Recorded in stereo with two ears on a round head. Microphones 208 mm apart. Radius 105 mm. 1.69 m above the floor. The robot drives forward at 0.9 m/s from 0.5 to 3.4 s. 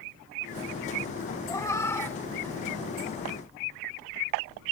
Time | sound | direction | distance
1.5 | a cat meowing | 15° left (ahead or behind) | ?